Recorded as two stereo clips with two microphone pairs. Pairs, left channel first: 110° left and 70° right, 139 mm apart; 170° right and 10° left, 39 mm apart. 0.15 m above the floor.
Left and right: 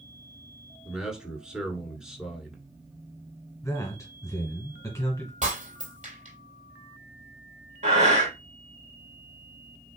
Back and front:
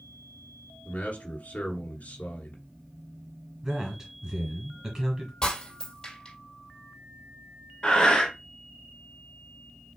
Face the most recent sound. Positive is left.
turn(degrees=-100)